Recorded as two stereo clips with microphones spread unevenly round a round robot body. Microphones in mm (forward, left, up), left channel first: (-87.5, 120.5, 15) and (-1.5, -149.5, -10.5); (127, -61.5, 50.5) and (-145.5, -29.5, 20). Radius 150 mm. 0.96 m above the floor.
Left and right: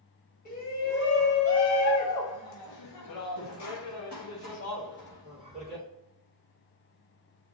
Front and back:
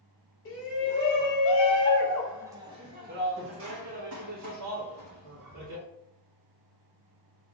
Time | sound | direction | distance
0.5 | a shout | 40° left | 1.4 m